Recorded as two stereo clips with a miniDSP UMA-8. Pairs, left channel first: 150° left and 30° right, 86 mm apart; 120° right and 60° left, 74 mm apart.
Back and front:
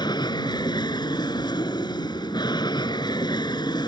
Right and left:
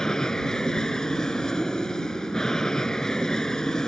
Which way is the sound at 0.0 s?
160° left.